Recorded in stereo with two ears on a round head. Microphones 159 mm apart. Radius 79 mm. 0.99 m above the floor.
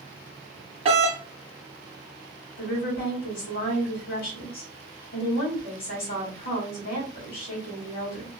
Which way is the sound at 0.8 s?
35° right (ahead or behind).